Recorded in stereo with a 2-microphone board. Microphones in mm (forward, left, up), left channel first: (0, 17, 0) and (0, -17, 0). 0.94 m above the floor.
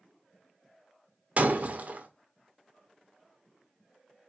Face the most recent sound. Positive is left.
turn(degrees=-50)  # may be behind; listen again after turning